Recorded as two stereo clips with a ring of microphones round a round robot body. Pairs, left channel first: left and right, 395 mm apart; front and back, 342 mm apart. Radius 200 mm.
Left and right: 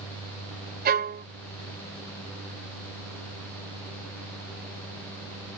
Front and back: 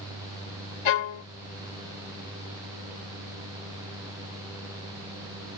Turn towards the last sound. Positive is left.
turn(degrees=-20)